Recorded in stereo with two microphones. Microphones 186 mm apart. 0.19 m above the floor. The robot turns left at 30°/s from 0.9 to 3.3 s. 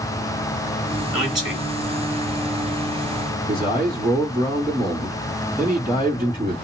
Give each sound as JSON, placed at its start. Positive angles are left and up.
{"t": 1.1, "sound": "a man speaking", "side_deg": 0, "distance_m": 1.5}
{"t": 3.5, "sound": "a man speaking", "side_deg": 25, "distance_m": 1.7}